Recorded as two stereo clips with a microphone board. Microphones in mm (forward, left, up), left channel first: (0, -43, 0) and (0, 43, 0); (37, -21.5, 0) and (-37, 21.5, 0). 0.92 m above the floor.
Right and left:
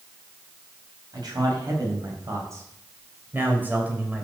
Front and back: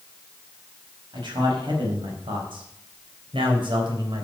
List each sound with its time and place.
1.1 s a man speaking: 125° left, 5 m; by 4.2 s 165° left, 3.5 m